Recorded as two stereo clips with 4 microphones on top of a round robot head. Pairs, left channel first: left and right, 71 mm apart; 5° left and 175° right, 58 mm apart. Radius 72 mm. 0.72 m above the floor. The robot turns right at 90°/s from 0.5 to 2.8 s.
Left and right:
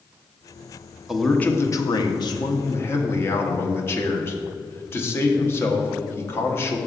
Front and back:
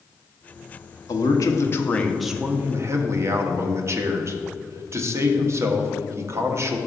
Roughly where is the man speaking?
Ahead.